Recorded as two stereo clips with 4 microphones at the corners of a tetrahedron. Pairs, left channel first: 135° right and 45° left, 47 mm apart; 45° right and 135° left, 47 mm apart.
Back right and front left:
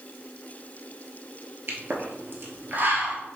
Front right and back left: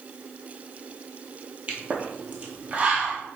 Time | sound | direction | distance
1.7 | a pop | 80° left | 0.9 m